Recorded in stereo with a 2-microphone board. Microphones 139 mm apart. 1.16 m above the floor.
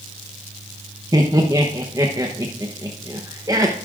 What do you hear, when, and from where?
1.1 s laughter: 25° right (ahead or behind), 0.9 m